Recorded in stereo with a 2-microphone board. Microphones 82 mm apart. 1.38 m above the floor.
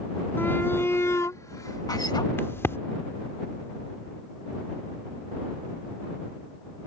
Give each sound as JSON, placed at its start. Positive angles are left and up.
{"t": 0.4, "sound": "a shout", "side_deg": 30}
{"t": 2.4, "sound": "a crack", "side_deg": 30}